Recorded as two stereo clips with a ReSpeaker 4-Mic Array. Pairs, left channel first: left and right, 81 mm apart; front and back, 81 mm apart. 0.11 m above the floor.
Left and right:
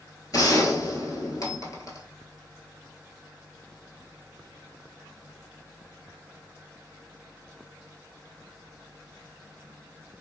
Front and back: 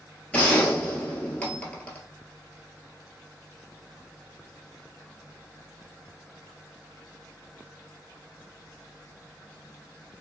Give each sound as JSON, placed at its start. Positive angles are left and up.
{"t": 0.3, "sound": "a gunshot", "azimuth_deg": 70, "distance_m": 1.0}